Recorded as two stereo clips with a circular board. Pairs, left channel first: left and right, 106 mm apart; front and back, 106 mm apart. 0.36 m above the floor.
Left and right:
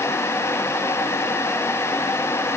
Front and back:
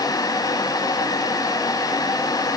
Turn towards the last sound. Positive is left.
No sound to turn to.